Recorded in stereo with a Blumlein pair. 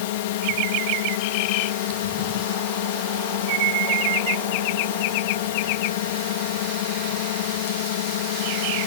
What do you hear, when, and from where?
0.0 s a drone: 50° left